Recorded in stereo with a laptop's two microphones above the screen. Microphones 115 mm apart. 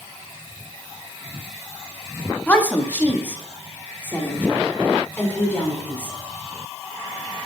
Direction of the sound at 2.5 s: 15° left (ahead or behind).